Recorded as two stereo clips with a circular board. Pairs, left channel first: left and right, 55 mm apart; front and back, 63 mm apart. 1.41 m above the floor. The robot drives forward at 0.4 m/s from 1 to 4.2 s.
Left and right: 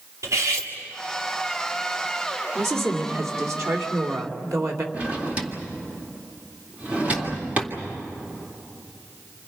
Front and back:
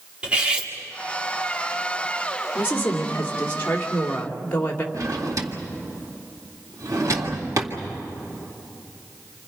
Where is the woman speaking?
55° right, 3 m; by 4.8 s 65° right, 3 m.